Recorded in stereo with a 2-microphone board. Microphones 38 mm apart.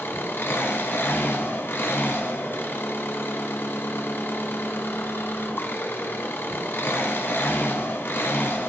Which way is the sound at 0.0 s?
65° left (ahead or behind).